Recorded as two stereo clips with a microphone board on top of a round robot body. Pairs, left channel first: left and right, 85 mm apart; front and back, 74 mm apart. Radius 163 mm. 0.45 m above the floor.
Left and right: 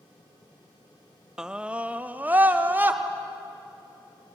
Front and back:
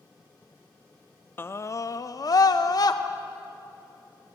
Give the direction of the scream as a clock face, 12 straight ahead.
12 o'clock.